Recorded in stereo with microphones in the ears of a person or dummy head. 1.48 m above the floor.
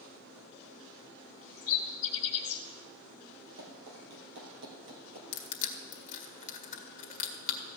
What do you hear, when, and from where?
1.6 s a bird: 45° left (ahead or behind), 1.8 m
3.6 s running footsteps: 60° right (ahead or behind), 3 m; by 5.2 s 55° right (ahead or behind), 2.5 m
5.3 s crushing: 40° left (ahead or behind), 1.8 m